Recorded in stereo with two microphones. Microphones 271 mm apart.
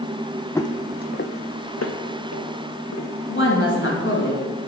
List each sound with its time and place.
0.6 s footsteps: 10° left (ahead or behind), 0.6 m; by 3.1 s 80° left, 1.8 m
3.3 s a woman speaking: 50° left (ahead or behind), 2.5 m